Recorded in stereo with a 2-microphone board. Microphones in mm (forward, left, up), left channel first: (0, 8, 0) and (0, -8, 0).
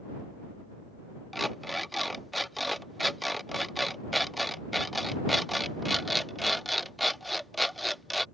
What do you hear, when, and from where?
1.3 s an alarm clock: 5° left (ahead or behind)